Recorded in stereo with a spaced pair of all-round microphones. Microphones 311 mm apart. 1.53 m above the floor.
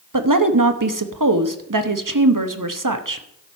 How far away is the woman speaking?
About 1.0 m.